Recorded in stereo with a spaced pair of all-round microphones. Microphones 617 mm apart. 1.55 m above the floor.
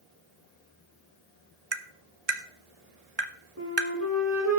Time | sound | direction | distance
1.7 | tapping | 40° right (ahead or behind) | 1.1 m
3.6 | a flute | 25° right (ahead or behind) | 5.5 m